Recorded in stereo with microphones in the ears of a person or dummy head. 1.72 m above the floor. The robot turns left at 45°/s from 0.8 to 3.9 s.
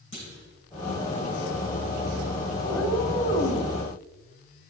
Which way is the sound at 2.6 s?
145° left.